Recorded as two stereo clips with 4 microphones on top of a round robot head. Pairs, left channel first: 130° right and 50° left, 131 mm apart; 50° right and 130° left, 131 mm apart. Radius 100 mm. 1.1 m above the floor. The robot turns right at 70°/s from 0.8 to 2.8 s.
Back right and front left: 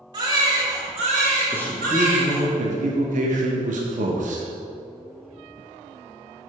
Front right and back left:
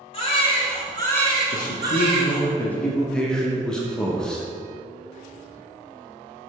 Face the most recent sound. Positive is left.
turn(degrees=30)